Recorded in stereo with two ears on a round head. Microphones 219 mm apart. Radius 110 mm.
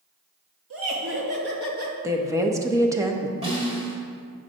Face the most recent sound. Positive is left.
turn(degrees=-25)  # may be behind; listen again after turning